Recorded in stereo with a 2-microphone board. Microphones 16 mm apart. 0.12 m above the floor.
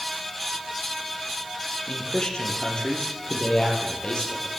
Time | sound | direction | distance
1.9 | a man speaking | 60° left (ahead or behind) | 4 m